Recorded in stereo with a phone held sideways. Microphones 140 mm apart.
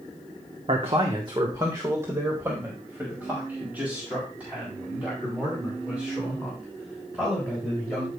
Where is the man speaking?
50° right (ahead or behind), 1.0 m; by 8.1 s 5° right (ahead or behind), 6.5 m.